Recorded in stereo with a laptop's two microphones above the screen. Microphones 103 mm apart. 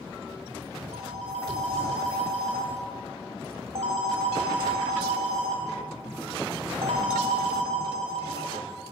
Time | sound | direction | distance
0.9 | a phone ringing | 85° right | 4.5 m